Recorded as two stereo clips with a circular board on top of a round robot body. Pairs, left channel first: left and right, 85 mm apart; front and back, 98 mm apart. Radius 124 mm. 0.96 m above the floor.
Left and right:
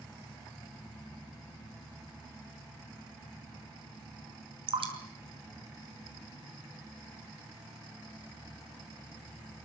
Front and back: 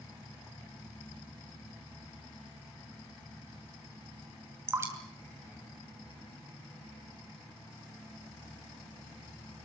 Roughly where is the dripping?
Behind right.